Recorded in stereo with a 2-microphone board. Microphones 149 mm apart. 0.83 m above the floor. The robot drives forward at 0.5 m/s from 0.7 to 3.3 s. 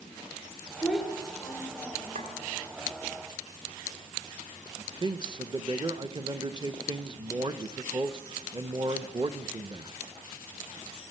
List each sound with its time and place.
0.8 s a child speaking: 5° left (ahead or behind), 2.5 m; by 2.3 s centre (ahead or behind), 3 m
2.1 s a clink: 60° right (ahead or behind), 1.5 m; by 2.3 s 65° right (ahead or behind), 1.4 m
4.8 s a man speaking: 30° right (ahead or behind), 0.6 m